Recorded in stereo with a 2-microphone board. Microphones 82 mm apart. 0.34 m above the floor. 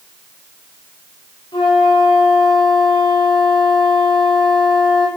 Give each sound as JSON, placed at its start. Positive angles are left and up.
{"t": 1.5, "sound": "a flute", "side_deg": 80, "distance_m": 7.5}